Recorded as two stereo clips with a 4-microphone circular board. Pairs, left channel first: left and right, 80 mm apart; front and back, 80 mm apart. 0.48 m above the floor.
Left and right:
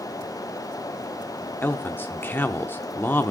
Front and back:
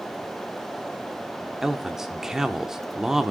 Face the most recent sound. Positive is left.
turn(degrees=105)